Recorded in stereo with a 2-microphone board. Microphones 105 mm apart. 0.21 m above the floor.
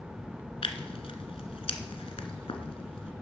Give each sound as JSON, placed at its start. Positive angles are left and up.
{"t": 0.6, "sound": "tearing paper", "side_deg": 65, "distance_m": 1.3}